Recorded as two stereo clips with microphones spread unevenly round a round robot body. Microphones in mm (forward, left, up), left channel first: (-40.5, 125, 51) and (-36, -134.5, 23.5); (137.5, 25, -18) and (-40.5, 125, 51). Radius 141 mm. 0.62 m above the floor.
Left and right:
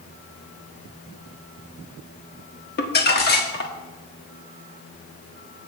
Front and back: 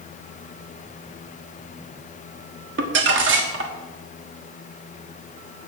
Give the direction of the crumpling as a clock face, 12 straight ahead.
8 o'clock.